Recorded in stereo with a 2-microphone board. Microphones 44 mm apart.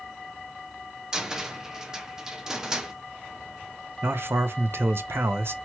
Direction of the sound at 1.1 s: 15° right (ahead or behind).